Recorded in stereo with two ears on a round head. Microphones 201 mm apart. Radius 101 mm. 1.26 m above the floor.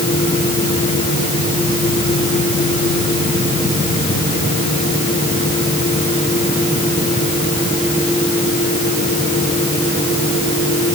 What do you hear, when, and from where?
Only background noise.